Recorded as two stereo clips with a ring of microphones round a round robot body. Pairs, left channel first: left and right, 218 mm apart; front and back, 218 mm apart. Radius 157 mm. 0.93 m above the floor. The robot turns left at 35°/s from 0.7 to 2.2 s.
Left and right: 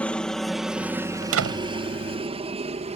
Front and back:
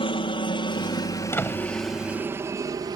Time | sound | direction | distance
0.0 | a helicopter | 15° left | ?
1.2 | a door slam | 80° right | ?